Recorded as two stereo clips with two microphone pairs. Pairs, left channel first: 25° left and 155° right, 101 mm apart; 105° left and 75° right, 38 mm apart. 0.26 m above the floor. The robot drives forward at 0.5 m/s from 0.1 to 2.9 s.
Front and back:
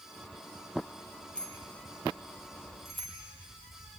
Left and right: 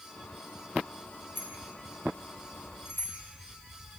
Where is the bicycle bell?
105° left, 5 m; by 3.2 s 115° left, 5.5 m.